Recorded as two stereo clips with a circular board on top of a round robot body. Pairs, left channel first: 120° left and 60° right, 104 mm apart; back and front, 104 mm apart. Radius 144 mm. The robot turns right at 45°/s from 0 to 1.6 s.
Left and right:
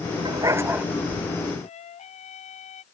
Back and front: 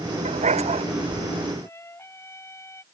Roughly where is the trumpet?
Behind left.